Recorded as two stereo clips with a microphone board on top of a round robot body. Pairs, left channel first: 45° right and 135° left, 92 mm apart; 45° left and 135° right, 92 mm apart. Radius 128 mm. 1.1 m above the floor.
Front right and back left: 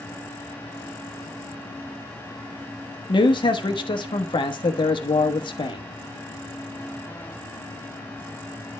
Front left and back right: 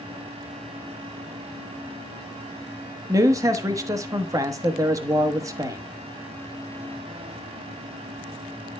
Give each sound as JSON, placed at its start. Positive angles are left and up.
{"t": 3.1, "sound": "a man speaking", "azimuth_deg": -80, "distance_m": 1.2}